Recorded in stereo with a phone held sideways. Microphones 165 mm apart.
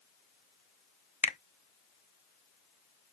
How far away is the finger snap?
About 0.8 m.